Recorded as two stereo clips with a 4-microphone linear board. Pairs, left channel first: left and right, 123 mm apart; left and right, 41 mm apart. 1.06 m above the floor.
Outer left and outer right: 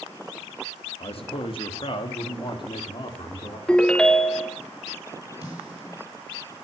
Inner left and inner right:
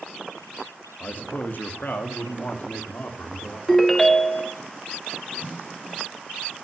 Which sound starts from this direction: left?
A man speaking, at 1.0 s.